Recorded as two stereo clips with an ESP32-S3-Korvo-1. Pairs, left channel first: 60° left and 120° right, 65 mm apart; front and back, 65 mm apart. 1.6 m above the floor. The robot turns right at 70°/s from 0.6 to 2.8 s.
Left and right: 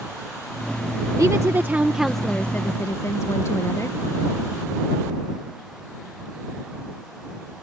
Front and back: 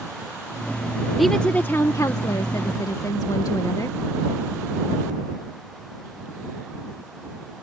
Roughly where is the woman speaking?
Right.